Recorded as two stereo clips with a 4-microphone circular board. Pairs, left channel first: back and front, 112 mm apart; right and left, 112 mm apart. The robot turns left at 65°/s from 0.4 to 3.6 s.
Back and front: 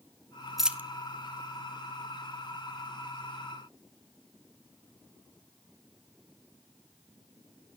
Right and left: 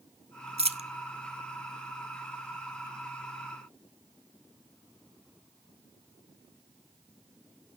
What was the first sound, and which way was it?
A dropped coin, 90° left.